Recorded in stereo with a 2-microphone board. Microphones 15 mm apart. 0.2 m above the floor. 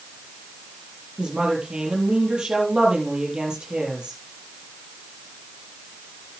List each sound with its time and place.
1.2 s a woman speaking: 75° right (ahead or behind), 5.5 m